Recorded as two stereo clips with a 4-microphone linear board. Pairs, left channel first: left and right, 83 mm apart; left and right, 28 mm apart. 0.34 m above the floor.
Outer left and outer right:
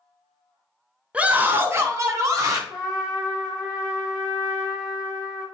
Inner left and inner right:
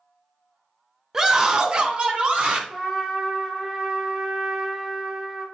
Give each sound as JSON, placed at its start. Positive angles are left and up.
{"t": 1.1, "sound": "a scream", "side_deg": -15, "distance_m": 0.9}
{"t": 2.7, "sound": "a trumpet", "side_deg": -10, "distance_m": 3.5}